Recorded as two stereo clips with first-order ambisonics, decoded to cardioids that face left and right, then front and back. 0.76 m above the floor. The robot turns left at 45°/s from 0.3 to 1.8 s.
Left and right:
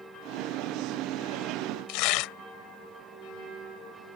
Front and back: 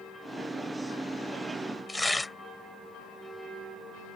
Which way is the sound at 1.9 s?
85° left.